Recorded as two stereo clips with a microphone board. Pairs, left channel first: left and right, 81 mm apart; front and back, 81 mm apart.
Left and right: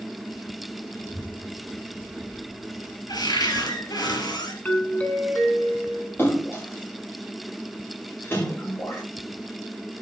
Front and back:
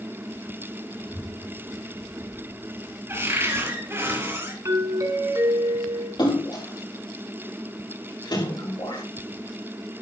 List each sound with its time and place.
0.9 s a child speaking: 65° left, 5.5 m; by 3.0 s 85° left, 4 m
3.1 s a cupboard door: 120° left, 3.5 m
4.7 s a doorbell: 155° left, 2.5 m
6.2 s a splash: 30° left, 8 m